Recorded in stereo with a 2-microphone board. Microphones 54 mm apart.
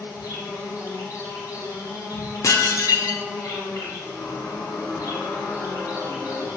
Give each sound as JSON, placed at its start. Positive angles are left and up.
{"t": 0.0, "sound": "an insect", "side_deg": 85, "distance_m": 5.0}
{"t": 2.4, "sound": "dishes clattering", "side_deg": 80, "distance_m": 1.7}
{"t": 4.0, "sound": "a squeak", "side_deg": 85, "distance_m": 4.5}